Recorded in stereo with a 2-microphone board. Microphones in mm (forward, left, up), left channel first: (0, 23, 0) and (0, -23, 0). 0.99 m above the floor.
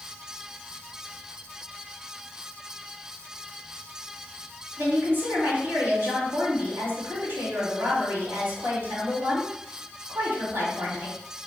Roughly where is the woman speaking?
Right.